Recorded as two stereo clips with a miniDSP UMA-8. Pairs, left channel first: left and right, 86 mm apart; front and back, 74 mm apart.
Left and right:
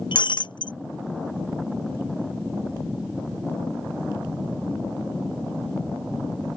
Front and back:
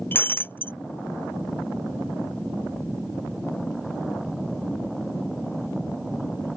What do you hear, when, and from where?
0.1 s breaking glass: 65° left